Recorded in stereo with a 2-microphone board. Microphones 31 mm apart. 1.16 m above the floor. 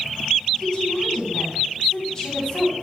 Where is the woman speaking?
15° left (ahead or behind), 8.5 m.